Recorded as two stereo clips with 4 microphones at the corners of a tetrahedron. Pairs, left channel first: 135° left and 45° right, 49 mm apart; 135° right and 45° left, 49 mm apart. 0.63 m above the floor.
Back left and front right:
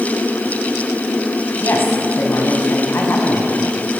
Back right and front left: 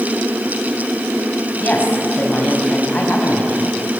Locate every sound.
1.6 s a woman speaking: 165° left, 5 m